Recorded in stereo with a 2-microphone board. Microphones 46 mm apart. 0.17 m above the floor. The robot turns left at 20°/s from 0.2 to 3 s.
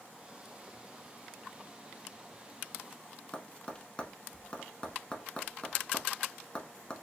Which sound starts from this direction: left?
Tapping, at 3.3 s.